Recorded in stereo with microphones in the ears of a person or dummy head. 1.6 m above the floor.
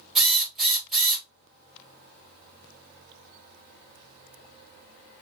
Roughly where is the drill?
Centre.